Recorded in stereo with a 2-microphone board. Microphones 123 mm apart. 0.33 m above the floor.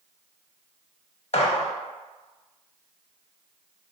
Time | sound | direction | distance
1.3 | a gunshot | 60° left (ahead or behind) | 0.5 m